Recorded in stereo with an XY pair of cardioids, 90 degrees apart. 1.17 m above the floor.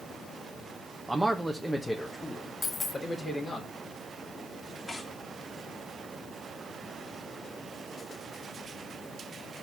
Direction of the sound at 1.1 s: 20° right.